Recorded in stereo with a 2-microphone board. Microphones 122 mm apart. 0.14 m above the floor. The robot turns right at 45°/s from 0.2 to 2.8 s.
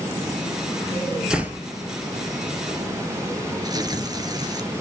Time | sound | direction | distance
1.3 | a door slam | 5° right (ahead or behind) | 2.5 m
3.6 | tearing paper | 35° right (ahead or behind) | 2 m